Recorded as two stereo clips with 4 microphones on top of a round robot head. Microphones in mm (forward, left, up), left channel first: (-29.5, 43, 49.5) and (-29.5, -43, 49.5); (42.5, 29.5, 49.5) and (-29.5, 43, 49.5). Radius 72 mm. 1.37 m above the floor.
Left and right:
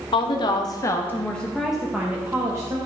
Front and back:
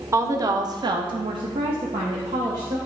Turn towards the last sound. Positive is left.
turn(degrees=-150)